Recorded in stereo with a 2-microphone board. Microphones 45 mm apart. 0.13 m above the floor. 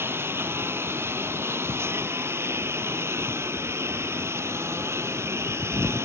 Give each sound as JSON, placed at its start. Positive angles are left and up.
{"t": 0.0, "sound": "a lawn mower", "side_deg": -60}